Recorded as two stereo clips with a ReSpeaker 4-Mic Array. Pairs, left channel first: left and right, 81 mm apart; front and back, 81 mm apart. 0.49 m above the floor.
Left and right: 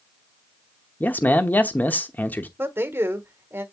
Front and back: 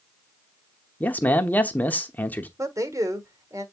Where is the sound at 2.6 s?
145° right, 1.3 m.